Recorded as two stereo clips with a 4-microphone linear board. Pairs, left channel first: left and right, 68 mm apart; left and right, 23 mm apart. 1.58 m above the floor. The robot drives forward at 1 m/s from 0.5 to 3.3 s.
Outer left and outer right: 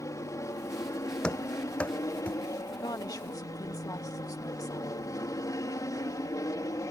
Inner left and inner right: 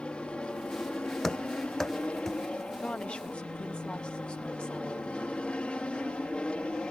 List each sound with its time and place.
0.0 s an aircraft: 50° left (ahead or behind); by 6.9 s 55° left (ahead or behind)
1.2 s running footsteps: 15° left (ahead or behind); by 2.4 s 20° left (ahead or behind)
2.8 s a woman speaking: 70° left (ahead or behind); by 5.0 s 60° left (ahead or behind)